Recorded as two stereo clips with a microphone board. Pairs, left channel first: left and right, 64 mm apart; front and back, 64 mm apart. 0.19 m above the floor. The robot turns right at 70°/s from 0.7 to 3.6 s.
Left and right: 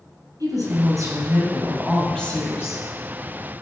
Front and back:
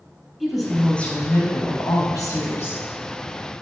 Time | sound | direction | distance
0.4 | a woman speaking | 90° right | 4 m